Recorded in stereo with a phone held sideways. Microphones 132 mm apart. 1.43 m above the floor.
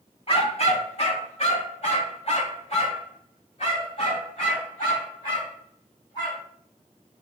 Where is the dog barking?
45° left (ahead or behind), 1.3 m; by 6.4 s 40° left (ahead or behind), 4 m.